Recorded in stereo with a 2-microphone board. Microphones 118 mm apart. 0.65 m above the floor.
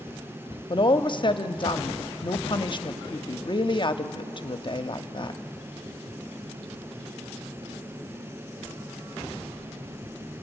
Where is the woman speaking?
40° left (ahead or behind), 0.8 m.